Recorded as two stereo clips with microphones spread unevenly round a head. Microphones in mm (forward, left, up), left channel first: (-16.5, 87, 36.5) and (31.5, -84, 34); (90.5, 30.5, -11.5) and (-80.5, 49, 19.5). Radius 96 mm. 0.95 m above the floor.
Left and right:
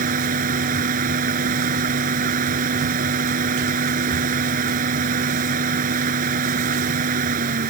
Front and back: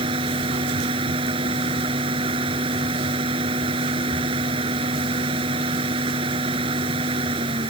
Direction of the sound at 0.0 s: 120° right.